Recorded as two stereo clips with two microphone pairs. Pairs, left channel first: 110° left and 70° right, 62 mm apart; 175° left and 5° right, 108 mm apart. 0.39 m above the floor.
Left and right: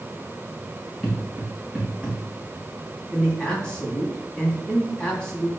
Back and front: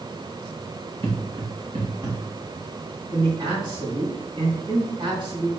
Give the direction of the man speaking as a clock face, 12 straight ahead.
11 o'clock.